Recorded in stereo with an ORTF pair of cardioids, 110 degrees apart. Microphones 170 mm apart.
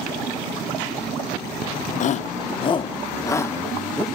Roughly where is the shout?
Ahead left.